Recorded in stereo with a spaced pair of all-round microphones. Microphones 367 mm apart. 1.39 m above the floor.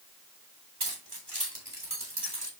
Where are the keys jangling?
85° right, 5.5 m; by 2.5 s 65° right (ahead or behind), 3.5 m.